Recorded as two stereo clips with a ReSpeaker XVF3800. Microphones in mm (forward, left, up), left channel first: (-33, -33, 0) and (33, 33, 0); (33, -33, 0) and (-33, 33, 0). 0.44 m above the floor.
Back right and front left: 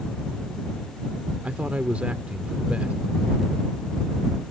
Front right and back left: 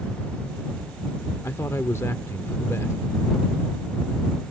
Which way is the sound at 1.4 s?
20° right.